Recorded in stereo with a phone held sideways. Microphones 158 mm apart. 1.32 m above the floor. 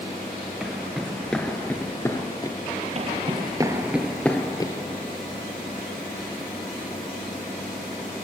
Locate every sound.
0.6 s footsteps: 5° right (ahead or behind), 1.3 m; by 2.6 s 25° left (ahead or behind), 1.4 m
3.0 s footsteps: 45° right (ahead or behind), 1.7 m; by 4.7 s 30° left (ahead or behind), 1.4 m